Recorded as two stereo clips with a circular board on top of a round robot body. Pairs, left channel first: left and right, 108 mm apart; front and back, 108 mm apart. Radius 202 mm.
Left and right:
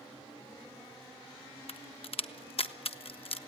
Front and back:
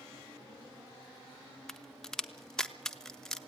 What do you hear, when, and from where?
1.7 s a crack: 85° left, 1.3 m